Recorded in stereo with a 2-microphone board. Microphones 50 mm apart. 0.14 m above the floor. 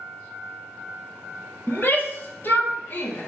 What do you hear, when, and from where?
1.7 s a shout: 45° left (ahead or behind), 2.5 m